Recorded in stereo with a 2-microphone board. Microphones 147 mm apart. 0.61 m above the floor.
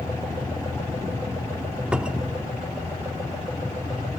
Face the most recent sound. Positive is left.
turn(degrees=-5)  # may be behind; listen again after turning